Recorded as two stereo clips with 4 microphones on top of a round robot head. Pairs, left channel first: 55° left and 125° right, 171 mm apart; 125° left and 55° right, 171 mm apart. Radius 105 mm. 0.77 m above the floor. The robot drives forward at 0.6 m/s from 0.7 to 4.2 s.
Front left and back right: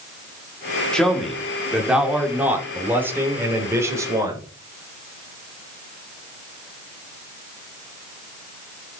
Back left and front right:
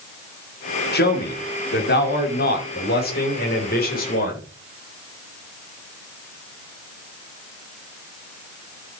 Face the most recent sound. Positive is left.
turn(degrees=160)